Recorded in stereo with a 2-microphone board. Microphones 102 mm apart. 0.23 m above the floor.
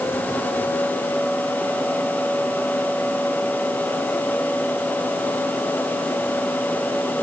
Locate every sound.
Only background noise.